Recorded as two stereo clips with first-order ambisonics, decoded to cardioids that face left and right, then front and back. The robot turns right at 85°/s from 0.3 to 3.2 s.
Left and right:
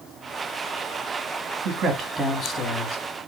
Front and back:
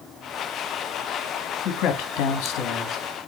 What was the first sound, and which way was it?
A man speaking, 45° right.